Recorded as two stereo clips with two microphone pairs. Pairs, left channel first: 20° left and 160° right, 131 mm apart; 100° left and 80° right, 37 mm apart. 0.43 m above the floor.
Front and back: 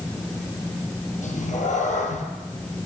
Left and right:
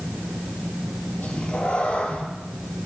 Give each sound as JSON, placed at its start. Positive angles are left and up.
{"t": 1.2, "sound": "a cat meowing", "azimuth_deg": 40, "distance_m": 2.5}